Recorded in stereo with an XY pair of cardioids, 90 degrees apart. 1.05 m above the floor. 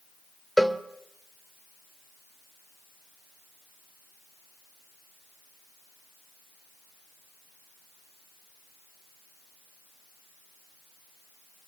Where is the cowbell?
5° right, 1.6 m.